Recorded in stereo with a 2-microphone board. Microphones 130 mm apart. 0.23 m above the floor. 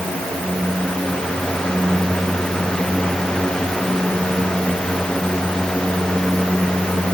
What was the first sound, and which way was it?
Only background noise.